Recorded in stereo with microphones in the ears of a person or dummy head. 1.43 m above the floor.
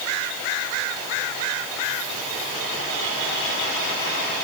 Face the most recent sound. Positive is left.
No sound to turn to.